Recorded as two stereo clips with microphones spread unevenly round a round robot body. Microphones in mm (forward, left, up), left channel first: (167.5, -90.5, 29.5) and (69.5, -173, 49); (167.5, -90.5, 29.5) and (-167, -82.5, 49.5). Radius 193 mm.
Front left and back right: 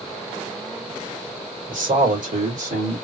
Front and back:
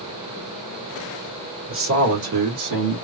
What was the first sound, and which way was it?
A man speaking, 130° right.